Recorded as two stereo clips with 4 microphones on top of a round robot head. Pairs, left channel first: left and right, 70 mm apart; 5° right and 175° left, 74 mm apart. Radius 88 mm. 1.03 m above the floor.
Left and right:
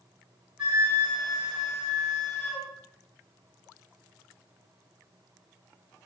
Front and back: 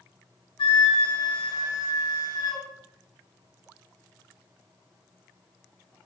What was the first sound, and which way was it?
A flute, 10° right.